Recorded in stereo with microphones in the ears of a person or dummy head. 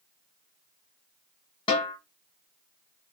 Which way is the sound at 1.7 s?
30° left (ahead or behind).